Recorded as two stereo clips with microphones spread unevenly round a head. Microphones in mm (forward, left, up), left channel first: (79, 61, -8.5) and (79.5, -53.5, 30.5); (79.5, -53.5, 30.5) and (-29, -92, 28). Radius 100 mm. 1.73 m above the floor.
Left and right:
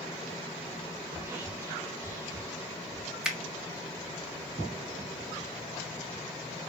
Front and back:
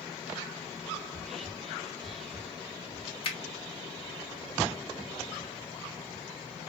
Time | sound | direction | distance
1.1 | whispering | 70° right | 0.6 m
3.2 | a finger snap | 10° right | 0.8 m